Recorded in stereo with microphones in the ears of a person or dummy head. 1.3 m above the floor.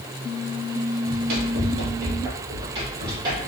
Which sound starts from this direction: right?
Running footsteps, at 1.1 s.